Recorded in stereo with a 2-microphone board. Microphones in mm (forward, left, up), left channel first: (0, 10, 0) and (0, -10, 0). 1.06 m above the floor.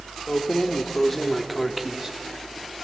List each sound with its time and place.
0.3 s keys jangling: 45° left (ahead or behind), 1.4 m; by 2.8 s 35° right (ahead or behind), 1.8 m